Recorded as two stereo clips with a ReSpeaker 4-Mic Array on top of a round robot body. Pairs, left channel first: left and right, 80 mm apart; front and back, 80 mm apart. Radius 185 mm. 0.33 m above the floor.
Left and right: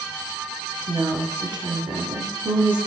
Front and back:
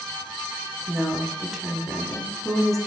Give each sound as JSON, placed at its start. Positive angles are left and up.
{"t": 0.9, "sound": "a woman speaking", "azimuth_deg": -90, "distance_m": 1.4}